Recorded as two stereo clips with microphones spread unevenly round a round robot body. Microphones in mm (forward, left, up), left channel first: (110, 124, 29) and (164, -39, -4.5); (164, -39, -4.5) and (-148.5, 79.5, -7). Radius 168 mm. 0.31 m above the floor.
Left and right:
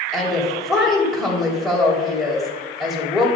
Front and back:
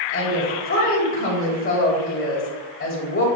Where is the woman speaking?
Straight ahead, 1.7 m.